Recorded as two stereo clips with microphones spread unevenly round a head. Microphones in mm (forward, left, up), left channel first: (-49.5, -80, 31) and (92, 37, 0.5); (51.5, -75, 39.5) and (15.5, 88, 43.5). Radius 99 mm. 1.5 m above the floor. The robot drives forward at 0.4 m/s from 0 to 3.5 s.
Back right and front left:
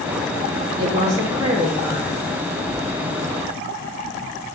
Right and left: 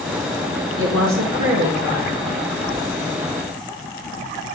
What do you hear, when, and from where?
0.8 s a woman speaking: 110° left, 2 m; by 2.3 s 125° left, 2.5 m